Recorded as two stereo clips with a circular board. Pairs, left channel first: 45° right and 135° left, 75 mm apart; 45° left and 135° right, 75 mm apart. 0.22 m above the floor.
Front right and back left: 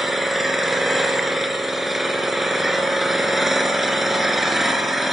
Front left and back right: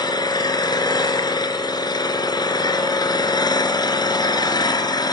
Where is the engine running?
45° left, 2.5 m.